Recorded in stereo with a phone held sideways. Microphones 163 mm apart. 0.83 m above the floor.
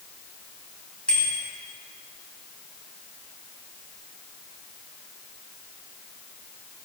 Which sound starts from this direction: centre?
A bicycle bell, at 1.1 s.